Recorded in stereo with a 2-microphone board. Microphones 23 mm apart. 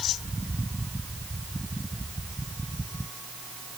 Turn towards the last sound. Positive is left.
No sound to turn to.